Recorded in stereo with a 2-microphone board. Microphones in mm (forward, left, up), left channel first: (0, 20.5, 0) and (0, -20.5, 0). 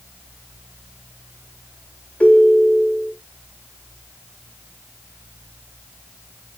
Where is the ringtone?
30° left (ahead or behind), 1.0 m.